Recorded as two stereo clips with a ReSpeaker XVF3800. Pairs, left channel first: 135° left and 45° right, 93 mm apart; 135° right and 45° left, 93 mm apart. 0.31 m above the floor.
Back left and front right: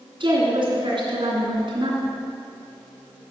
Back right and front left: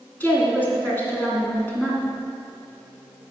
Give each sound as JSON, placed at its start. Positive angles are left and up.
{"t": 0.2, "sound": "a woman speaking", "azimuth_deg": -65, "distance_m": 2.5}